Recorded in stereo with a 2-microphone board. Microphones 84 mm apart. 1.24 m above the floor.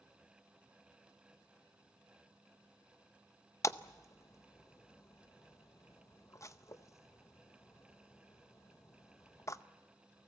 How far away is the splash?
About 0.6 m.